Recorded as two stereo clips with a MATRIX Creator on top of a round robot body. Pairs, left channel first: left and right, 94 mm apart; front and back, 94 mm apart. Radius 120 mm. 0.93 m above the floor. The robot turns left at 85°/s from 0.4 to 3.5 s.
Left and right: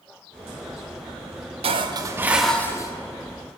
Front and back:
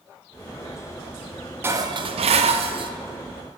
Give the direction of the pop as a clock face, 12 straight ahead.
No pop in this recording.